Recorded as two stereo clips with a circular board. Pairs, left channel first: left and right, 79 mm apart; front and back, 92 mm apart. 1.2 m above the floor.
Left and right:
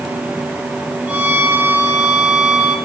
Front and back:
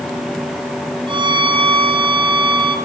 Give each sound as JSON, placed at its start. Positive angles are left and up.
{"t": 1.1, "sound": "a violin", "azimuth_deg": -165, "distance_m": 3.5}